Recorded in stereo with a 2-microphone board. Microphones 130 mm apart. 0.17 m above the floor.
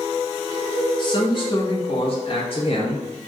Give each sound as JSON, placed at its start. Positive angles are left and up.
{"t": 1.0, "sound": "a man speaking", "side_deg": 40, "distance_m": 1.6}